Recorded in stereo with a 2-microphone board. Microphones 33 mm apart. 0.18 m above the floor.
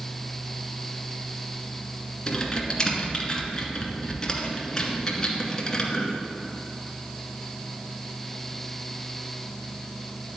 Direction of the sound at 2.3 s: 25° left (ahead or behind).